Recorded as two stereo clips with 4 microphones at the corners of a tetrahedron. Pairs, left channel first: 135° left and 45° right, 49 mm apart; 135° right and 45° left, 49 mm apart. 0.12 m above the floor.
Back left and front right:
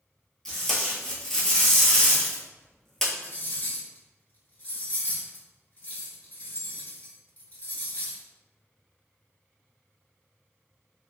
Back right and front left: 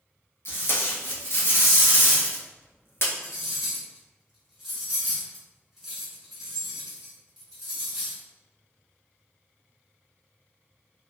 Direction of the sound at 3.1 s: 120° left.